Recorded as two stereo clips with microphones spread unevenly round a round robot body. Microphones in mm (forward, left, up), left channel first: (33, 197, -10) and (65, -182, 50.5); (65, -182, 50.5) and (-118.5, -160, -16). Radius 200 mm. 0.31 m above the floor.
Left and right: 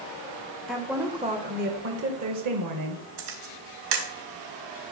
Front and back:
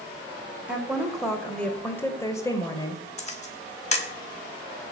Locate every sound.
0.7 s a woman speaking: 165° left, 1.2 m; by 3.0 s 90° right, 1.5 m
3.2 s a camera shutter: 65° right, 3 m